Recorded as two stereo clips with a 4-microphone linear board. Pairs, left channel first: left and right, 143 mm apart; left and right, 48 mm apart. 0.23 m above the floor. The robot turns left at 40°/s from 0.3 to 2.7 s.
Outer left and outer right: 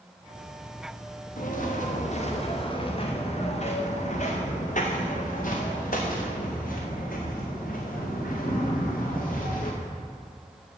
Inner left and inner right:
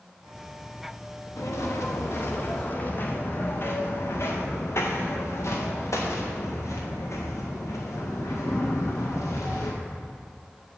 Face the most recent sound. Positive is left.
turn(degrees=80)